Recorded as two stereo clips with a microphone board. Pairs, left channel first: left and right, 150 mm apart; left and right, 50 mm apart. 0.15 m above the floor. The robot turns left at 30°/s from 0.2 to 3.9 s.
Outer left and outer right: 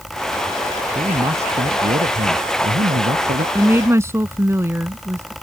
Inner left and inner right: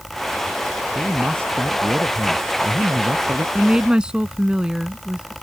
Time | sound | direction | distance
0.9 | a man speaking | 30° right | ?
3.5 | a woman speaking | 10° right (ahead or behind) | ?